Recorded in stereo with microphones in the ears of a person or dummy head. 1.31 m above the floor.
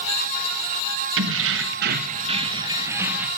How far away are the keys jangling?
About 1.2 m.